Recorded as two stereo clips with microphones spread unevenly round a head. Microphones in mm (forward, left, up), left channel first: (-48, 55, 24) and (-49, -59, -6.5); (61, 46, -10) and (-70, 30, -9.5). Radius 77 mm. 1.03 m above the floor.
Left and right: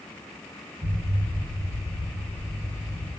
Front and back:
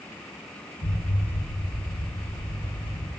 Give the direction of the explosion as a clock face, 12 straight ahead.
1 o'clock.